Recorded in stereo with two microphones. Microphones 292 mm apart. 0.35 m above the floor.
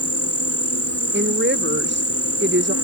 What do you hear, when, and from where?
0.0 s an insect: 55° left (ahead or behind)
1.1 s a woman speaking: 40° right (ahead or behind)